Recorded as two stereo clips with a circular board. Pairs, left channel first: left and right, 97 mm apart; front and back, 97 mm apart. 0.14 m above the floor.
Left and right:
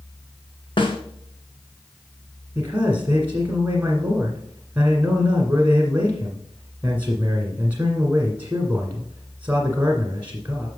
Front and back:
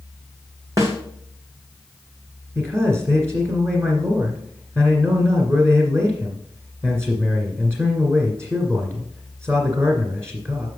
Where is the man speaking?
145° right, 1.6 m.